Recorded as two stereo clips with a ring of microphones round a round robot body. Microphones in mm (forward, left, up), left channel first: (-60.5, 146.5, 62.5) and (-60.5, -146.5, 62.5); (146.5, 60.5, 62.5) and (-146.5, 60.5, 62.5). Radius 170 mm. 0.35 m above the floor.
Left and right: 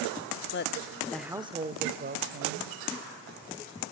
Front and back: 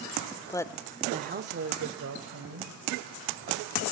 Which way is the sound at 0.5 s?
70° left.